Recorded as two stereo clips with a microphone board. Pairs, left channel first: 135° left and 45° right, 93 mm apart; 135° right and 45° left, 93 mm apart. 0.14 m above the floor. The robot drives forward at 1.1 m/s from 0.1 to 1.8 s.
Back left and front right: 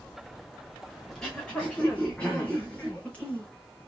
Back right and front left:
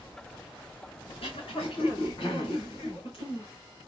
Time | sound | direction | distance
1.1 | throat clearing | 140° right | 2 m